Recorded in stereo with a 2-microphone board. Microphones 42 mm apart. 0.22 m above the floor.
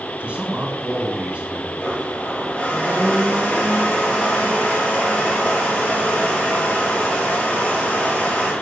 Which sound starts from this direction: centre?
A blender, at 1.8 s.